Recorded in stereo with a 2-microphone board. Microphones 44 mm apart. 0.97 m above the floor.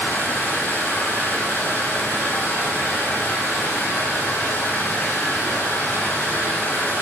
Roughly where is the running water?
Left.